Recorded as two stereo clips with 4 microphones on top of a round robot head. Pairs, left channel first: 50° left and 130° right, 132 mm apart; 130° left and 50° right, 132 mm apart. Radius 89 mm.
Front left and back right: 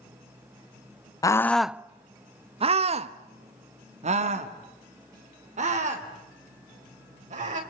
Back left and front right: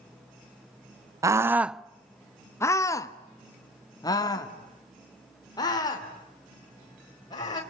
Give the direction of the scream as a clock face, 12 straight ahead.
12 o'clock.